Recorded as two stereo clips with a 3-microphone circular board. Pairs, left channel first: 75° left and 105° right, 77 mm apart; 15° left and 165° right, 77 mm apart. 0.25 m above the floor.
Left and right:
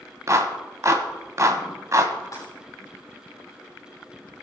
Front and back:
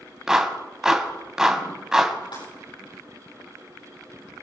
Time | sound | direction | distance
0.3 | a clap | 85° right | 1.5 m
2.3 | breaking glass | 25° left | 8 m